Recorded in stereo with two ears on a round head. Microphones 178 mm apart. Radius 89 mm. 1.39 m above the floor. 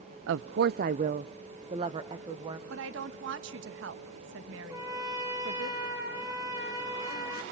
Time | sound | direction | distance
0.3 | a woman speaking | 70° right (ahead or behind) | 0.5 m
2.7 | a woman speaking | 65° right (ahead or behind) | 1.6 m
4.7 | a trumpet | 15° right (ahead or behind) | 5 m